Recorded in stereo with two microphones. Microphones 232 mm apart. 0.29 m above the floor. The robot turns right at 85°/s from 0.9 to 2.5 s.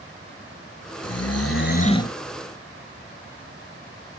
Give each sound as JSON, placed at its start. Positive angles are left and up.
{"t": 1.0, "sound": "snoring", "azimuth_deg": 80, "distance_m": 0.8}